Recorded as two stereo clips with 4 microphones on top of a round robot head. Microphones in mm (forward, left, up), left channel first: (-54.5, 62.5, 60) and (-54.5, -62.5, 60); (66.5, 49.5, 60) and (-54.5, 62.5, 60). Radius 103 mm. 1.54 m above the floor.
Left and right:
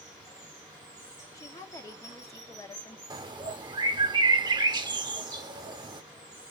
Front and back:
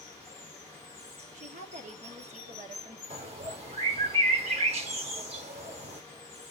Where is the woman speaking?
155° left, 1.0 m.